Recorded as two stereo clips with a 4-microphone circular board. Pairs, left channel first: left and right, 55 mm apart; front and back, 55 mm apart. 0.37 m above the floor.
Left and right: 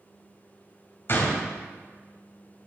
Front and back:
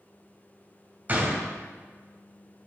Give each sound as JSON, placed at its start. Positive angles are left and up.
{"t": 1.1, "sound": "a gunshot", "azimuth_deg": 130, "distance_m": 2.0}